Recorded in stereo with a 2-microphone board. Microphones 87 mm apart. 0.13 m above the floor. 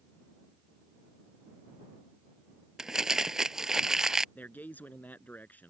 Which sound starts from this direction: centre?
Crumpling, at 2.8 s.